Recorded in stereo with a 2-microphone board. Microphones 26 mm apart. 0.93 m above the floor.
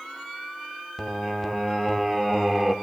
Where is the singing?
10° right (ahead or behind), 0.9 m.